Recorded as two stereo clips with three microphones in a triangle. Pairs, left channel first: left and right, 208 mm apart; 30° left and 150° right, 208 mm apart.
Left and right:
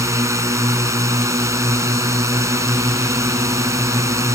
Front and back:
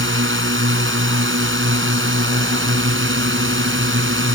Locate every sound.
0.0 s a drone: 165° right